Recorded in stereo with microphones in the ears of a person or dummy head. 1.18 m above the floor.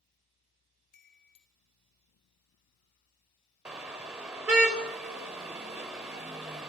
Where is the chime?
50° left (ahead or behind), 1.4 m.